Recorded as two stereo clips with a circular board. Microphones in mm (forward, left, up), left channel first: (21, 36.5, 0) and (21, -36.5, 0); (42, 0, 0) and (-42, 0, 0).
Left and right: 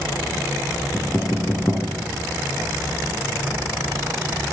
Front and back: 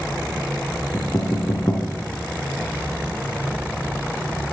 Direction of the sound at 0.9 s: 45° left.